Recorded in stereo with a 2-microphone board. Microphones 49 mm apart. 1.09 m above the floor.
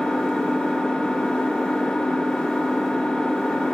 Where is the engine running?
10° left (ahead or behind), 1.4 m.